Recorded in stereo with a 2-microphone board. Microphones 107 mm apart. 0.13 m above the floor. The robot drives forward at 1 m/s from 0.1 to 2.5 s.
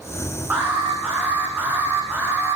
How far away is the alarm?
About 9.5 m.